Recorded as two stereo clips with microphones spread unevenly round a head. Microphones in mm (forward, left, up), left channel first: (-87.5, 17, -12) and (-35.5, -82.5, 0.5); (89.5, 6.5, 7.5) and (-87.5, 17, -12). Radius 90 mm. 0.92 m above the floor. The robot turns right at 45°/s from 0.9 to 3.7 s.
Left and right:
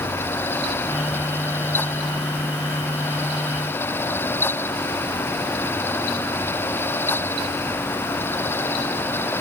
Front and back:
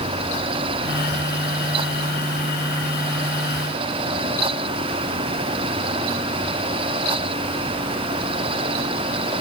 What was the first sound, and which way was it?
Only background noise.